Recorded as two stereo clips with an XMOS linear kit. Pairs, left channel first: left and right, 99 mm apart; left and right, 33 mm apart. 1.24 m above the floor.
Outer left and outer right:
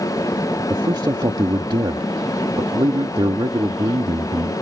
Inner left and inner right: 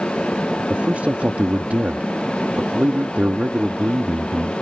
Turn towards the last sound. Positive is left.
turn(degrees=-50)  # may be behind; listen again after turning